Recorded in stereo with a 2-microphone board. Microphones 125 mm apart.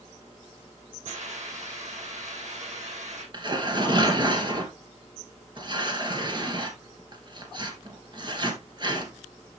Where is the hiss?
75° right (ahead or behind), 5.5 m.